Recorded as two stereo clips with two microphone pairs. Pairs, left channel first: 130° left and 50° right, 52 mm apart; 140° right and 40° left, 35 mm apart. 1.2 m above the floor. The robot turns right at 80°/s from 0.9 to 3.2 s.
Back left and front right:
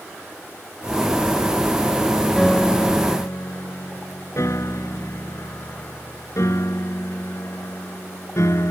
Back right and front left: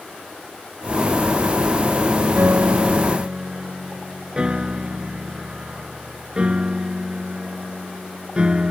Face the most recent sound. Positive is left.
turn(degrees=105)